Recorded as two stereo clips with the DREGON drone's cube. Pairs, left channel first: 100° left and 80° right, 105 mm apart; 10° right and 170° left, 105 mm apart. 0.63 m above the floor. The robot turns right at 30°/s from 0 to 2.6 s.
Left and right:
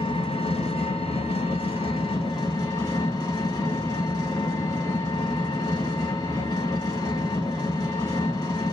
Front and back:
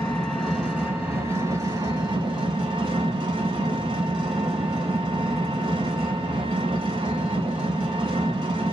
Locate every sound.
0.0 s an engine running: 70° left, 1.4 m; by 8.7 s 150° left, 1.4 m